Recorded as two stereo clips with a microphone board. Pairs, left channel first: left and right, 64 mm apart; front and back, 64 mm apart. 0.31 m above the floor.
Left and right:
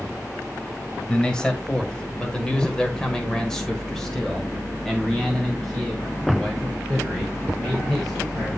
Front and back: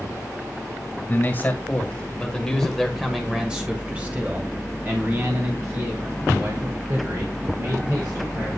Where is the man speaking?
25° left, 1.7 m; by 8.5 s straight behind, 3 m.